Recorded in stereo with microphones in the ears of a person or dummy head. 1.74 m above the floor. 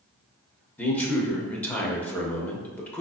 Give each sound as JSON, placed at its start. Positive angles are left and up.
{"t": 0.8, "sound": "a man speaking", "side_deg": 10, "distance_m": 0.8}